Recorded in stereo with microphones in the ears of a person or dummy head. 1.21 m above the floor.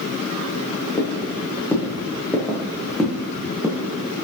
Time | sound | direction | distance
1.0 | footsteps | 15° left (ahead or behind) | 3.5 m